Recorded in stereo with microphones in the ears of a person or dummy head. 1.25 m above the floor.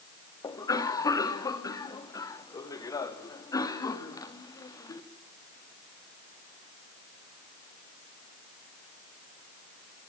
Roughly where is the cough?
Left.